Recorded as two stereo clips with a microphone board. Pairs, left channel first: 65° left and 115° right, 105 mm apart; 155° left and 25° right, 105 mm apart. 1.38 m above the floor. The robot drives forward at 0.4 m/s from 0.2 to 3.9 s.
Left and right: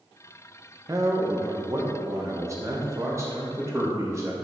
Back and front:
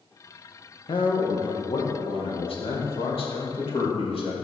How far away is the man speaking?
About 1.5 m.